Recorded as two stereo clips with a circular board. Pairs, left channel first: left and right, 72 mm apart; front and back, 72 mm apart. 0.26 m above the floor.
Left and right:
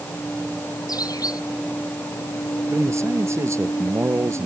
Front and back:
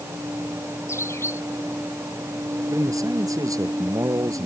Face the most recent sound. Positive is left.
turn(degrees=-140)